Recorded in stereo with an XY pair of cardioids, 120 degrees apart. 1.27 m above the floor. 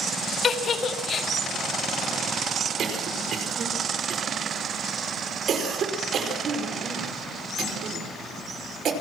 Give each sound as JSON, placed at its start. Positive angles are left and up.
{"t": 0.4, "sound": "a giggle", "azimuth_deg": 40, "distance_m": 1.9}
{"t": 2.8, "sound": "a cough", "azimuth_deg": -55, "distance_m": 4.5}